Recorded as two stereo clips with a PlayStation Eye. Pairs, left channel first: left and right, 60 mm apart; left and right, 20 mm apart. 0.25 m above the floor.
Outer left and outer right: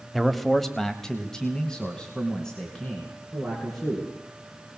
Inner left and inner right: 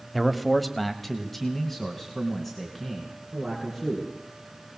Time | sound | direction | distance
0.1 | a man speaking | centre (ahead or behind) | 1.2 m